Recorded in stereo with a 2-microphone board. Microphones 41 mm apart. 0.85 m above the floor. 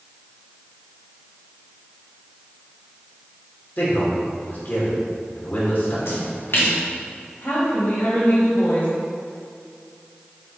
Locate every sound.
3.8 s a man speaking: 45° left (ahead or behind), 3 m
6.0 s a splash: 60° left (ahead or behind), 2.0 m
7.4 s a woman speaking: 50° left (ahead or behind), 2.5 m